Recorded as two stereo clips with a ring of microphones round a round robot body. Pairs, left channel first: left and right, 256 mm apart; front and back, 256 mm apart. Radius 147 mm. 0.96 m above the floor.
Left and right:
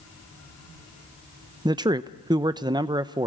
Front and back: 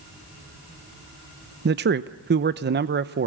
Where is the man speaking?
155° right, 0.8 m.